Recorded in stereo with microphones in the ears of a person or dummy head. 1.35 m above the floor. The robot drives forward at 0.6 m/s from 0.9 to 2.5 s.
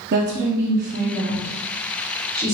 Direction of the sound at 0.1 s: 55° right (ahead or behind).